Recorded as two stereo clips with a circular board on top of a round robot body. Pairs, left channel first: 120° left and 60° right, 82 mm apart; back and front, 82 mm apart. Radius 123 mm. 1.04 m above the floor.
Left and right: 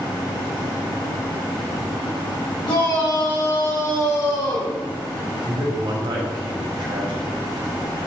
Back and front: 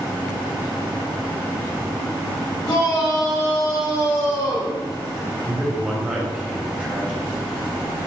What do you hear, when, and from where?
2.6 s a shout: 140° left, 5.5 m
5.5 s a man speaking: 80° right, 4 m